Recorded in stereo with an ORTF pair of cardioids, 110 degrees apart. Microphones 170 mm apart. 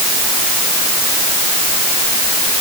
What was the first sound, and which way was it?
Only background noise.